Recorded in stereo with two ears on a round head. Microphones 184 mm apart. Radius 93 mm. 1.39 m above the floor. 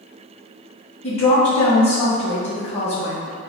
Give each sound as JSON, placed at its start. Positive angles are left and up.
{"t": 1.0, "sound": "a woman speaking", "side_deg": 35, "distance_m": 1.6}